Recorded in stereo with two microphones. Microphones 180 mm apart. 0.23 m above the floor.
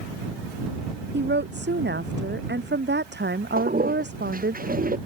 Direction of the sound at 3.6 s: 50° right (ahead or behind).